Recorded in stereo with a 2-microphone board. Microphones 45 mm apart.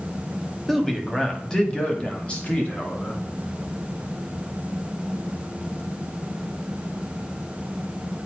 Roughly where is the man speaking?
Centre.